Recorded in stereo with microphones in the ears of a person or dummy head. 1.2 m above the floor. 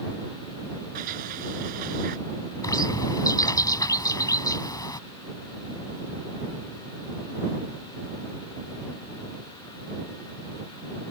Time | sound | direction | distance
0.9 | a sliding door | 45° right (ahead or behind) | ?
2.6 | a bird | 20° left (ahead or behind) | ?